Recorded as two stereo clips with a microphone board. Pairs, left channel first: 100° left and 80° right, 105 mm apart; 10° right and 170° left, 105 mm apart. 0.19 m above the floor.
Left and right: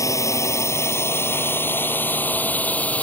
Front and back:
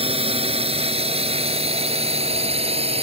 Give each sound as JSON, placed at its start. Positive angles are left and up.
{"t": 0.0, "sound": "a drone", "azimuth_deg": 160}